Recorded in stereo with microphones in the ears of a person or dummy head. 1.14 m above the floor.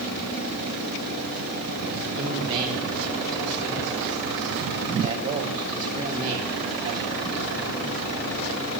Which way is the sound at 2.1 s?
40° right (ahead or behind).